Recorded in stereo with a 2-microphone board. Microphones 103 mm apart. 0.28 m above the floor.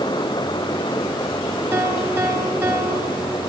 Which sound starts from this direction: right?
A piano, at 1.7 s.